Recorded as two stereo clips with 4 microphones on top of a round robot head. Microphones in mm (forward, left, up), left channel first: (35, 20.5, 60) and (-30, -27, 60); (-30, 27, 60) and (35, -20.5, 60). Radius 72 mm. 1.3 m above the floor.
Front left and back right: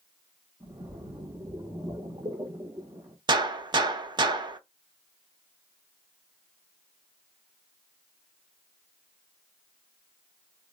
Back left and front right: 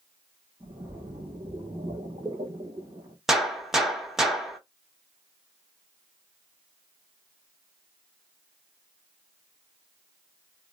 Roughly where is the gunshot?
Behind right.